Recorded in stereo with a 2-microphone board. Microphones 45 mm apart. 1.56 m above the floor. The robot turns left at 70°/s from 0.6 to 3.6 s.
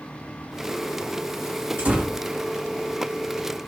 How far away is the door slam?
About 1.8 m.